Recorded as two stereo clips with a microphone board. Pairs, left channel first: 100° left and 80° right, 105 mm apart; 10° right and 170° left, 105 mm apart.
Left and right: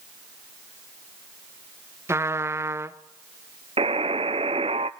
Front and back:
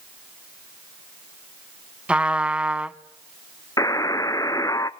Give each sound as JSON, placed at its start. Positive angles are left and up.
{"t": 2.1, "sound": "a trumpet", "azimuth_deg": -120, "distance_m": 0.7}
{"t": 3.8, "sound": "a buzzer", "azimuth_deg": -70, "distance_m": 0.6}